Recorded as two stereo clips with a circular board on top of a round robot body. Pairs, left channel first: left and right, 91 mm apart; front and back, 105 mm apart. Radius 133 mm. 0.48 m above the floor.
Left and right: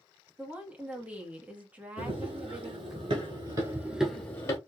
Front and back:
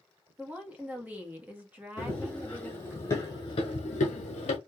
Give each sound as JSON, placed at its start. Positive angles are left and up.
{"t": 0.4, "sound": "a woman speaking", "azimuth_deg": -135, "distance_m": 1.2}
{"t": 2.0, "sound": "running footsteps", "azimuth_deg": -80, "distance_m": 2.0}